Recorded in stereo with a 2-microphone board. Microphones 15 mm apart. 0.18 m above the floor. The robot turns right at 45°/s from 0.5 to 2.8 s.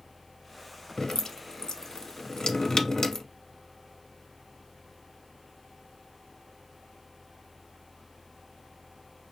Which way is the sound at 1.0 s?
25° left (ahead or behind).